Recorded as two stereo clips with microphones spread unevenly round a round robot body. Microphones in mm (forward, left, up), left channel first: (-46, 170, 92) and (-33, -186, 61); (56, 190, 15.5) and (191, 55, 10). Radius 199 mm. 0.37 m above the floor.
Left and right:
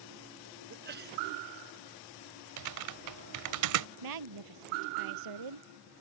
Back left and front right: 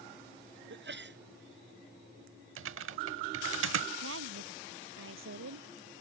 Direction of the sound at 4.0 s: 55° right.